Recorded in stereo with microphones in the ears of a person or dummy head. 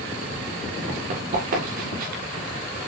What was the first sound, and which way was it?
Running footsteps, 45° right (ahead or behind).